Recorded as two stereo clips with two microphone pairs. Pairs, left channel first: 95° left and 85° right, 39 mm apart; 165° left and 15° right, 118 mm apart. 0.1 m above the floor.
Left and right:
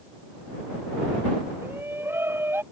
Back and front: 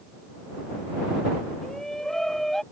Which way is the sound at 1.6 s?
110° right.